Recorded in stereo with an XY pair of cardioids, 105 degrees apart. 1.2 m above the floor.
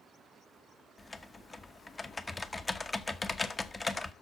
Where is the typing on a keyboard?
20° left, 1.0 m.